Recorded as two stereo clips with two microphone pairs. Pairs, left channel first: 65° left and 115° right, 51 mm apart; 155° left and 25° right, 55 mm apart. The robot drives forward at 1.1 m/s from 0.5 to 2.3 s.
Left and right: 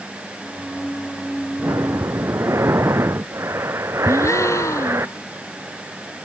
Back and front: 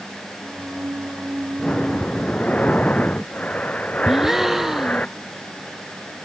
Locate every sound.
1.6 s breathing: 130° right; by 5.1 s 140° right
4.1 s a gasp: 60° left